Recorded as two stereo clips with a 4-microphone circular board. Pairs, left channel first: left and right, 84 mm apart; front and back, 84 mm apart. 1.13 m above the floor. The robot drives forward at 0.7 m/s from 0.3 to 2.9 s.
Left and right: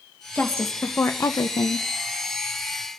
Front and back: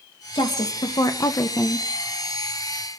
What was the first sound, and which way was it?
A woman speaking, 20° left.